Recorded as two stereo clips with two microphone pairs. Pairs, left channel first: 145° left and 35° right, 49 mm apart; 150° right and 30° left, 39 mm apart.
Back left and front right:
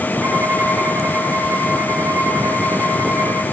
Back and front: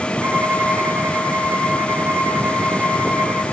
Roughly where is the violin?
Ahead.